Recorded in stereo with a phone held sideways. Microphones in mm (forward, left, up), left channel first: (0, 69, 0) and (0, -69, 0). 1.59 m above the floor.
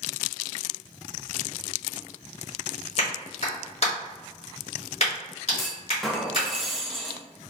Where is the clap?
50° left (ahead or behind), 1.7 m.